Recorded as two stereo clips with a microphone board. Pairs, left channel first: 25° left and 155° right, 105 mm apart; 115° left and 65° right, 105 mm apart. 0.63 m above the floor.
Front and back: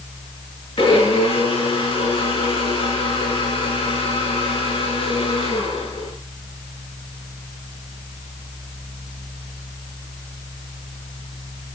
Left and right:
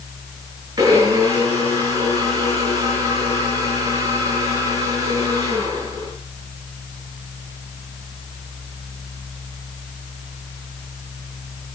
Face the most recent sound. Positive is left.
turn(degrees=-10)